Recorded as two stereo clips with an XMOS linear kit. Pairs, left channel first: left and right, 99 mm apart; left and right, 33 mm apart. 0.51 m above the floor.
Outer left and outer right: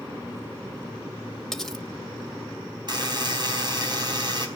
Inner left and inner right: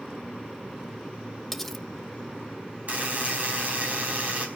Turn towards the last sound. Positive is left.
turn(degrees=-50)  # may be behind; listen again after turning